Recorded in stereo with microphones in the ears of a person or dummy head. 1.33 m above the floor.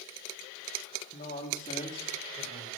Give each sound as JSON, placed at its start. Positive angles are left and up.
{"t": 1.1, "sound": "a man speaking", "side_deg": 40, "distance_m": 2.0}